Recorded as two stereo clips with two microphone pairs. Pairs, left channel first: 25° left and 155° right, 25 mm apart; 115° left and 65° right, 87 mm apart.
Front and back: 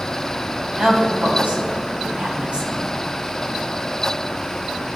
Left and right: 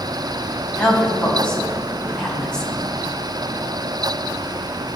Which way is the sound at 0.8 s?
165° right.